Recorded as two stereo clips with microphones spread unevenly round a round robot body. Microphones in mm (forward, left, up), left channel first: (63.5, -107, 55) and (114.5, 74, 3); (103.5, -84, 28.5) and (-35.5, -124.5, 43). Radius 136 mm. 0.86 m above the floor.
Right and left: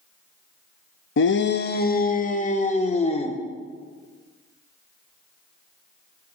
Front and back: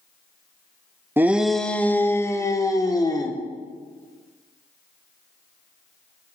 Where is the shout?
85° right, 0.9 m; by 3.4 s 45° right, 2.5 m.